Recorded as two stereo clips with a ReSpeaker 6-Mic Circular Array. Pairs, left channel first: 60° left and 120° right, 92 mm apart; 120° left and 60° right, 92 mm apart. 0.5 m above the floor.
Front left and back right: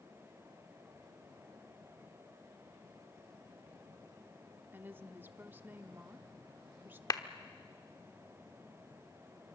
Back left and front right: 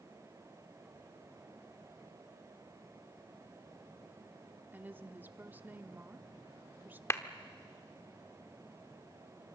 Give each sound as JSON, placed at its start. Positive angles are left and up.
{"t": 4.7, "sound": "a woman speaking", "azimuth_deg": -90, "distance_m": 0.9}
{"t": 7.1, "sound": "a clap", "azimuth_deg": 75, "distance_m": 0.9}